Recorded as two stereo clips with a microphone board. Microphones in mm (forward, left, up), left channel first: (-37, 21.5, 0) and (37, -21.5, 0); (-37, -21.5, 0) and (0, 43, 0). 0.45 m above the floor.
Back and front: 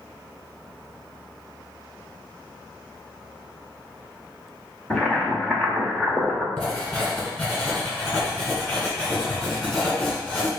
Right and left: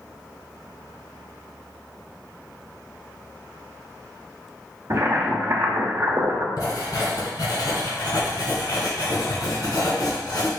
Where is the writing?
140° right, 1.9 m.